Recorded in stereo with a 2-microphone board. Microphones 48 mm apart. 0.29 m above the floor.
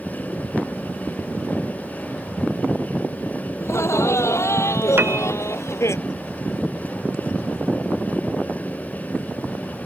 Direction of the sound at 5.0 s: 50° right (ahead or behind).